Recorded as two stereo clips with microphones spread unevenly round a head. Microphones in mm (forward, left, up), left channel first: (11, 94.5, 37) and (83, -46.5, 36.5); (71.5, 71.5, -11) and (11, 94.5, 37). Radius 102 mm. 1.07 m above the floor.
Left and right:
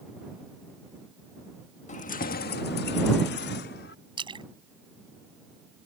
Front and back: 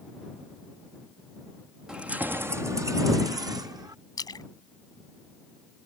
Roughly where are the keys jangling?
Left.